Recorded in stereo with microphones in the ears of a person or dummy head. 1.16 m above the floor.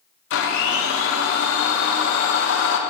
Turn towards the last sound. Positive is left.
turn(degrees=70)  # may be behind; listen again after turning